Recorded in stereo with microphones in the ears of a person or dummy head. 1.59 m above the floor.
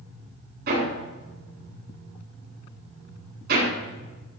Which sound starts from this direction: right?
Hammering, at 0.7 s.